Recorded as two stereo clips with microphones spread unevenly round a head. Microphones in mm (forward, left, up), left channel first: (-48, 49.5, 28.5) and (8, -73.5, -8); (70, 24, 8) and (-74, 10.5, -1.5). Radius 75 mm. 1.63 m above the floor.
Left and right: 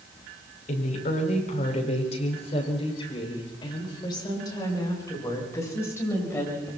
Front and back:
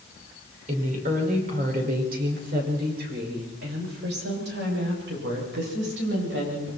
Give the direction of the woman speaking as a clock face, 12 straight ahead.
7 o'clock.